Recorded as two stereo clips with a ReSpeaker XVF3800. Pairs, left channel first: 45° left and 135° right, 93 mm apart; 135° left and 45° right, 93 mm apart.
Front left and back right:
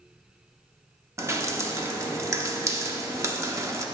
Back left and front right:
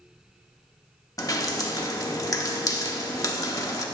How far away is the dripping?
About 0.7 m.